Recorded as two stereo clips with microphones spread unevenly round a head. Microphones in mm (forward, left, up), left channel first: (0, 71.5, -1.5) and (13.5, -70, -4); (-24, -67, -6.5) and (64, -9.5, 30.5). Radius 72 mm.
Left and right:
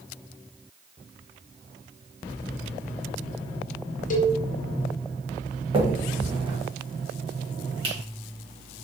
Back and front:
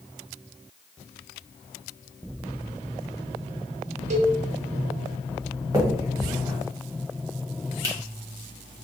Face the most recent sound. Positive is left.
turn(degrees=-30)